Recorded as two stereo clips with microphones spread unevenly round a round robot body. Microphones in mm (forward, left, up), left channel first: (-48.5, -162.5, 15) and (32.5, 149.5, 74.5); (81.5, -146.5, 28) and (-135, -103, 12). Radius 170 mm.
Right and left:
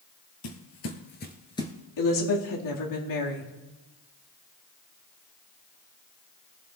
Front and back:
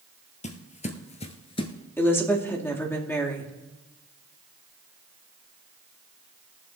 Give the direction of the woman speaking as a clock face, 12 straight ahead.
3 o'clock.